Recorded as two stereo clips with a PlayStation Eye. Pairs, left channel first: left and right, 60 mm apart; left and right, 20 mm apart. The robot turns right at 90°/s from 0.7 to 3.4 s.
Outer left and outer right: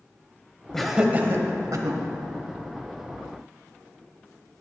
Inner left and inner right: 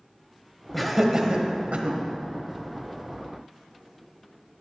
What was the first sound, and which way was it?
Laughter, 10° left (ahead or behind).